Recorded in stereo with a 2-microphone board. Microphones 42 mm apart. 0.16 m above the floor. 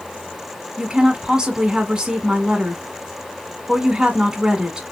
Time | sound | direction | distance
0.8 | a woman speaking | 20° right (ahead or behind) | 1.1 m